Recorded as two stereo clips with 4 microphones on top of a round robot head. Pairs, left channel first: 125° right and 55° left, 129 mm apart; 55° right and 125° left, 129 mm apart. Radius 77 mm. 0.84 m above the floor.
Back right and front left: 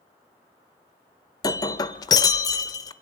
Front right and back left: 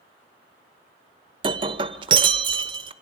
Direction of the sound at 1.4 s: 175° left.